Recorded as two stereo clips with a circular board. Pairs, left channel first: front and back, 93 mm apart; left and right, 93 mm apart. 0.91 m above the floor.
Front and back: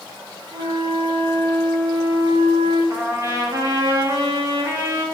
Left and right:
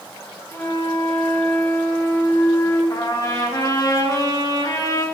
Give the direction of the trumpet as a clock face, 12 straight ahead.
8 o'clock.